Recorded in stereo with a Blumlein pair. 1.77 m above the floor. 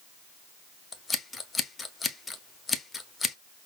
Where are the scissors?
10° left, 0.7 m.